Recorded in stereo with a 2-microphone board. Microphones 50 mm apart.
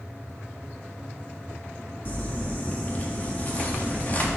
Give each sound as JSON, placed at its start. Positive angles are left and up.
{"t": 2.0, "sound": "crumpling", "side_deg": 35, "distance_m": 1.4}